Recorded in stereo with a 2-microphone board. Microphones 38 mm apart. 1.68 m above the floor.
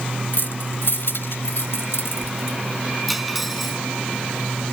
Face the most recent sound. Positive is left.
turn(degrees=-5)  # may be behind; listen again after turning